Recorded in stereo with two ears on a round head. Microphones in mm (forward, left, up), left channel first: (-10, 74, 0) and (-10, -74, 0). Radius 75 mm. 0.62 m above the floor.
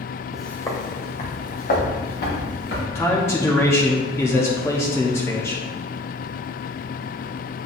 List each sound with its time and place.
0.3 s footsteps: 5° right (ahead or behind), 1.2 m; by 2.9 s 65° left (ahead or behind), 4 m
3.0 s a man speaking: 15° left (ahead or behind), 0.8 m